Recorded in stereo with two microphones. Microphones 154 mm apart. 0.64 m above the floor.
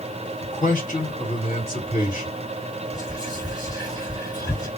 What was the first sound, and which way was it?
A man speaking, 55° left (ahead or behind).